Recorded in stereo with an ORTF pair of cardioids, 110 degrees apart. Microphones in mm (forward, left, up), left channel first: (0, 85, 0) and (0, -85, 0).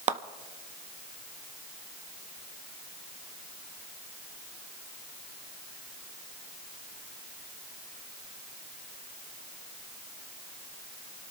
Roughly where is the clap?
Ahead right.